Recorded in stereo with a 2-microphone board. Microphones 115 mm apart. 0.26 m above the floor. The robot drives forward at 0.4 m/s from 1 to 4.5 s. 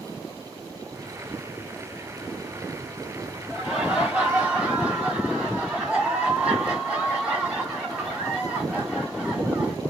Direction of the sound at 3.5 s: 5° right (ahead or behind).